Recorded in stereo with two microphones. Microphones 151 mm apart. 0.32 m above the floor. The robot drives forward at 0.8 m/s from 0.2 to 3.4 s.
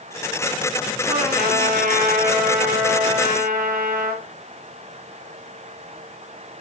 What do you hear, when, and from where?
1.1 s a trumpet: 80° right, 6.5 m